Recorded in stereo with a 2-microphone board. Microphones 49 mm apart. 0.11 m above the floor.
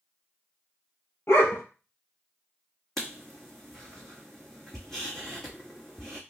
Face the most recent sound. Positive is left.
turn(degrees=10)  # may be behind; listen again after turning